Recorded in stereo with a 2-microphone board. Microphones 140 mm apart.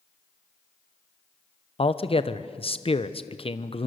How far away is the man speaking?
About 1.0 m.